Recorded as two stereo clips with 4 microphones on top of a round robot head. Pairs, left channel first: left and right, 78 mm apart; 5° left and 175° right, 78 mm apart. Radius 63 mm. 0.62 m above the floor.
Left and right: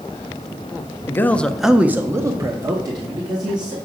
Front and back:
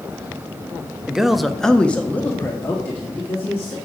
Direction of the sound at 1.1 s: 110° left.